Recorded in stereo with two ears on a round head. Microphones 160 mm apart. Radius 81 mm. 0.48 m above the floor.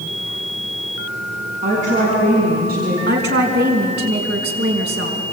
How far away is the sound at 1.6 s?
About 5.5 m.